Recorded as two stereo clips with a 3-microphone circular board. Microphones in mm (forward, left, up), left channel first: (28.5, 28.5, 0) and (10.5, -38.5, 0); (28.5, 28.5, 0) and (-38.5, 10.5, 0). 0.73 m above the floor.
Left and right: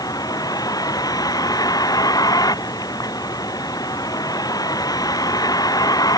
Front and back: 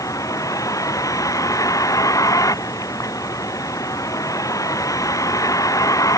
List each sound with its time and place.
0.0 s a vehicle: 50° left